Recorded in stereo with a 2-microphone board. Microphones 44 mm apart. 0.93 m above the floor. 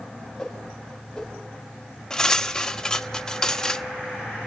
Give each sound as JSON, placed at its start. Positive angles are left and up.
{"t": 0.4, "sound": "a whoosh", "side_deg": 10, "distance_m": 6.5}
{"t": 2.1, "sound": "cutlery clinking", "side_deg": 20, "distance_m": 0.9}